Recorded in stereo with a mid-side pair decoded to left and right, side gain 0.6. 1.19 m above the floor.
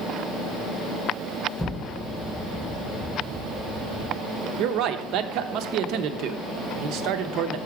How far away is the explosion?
About 1.0 m.